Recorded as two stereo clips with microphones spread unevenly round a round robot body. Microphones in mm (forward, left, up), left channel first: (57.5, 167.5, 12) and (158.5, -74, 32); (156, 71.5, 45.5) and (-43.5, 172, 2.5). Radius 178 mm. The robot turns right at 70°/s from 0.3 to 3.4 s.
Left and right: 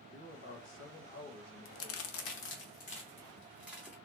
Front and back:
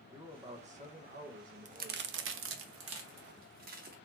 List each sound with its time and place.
0.1 s a man speaking: 95° left, 1.2 m; by 2.6 s 105° right, 1.2 m
1.6 s a crack: 90° left, 0.5 m; by 3.9 s 145° right, 0.5 m